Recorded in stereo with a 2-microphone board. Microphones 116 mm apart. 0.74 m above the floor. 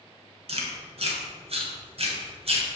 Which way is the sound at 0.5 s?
55° right (ahead or behind).